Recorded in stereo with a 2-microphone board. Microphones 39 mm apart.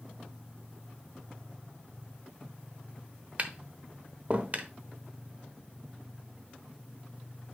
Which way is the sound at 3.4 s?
40° right (ahead or behind).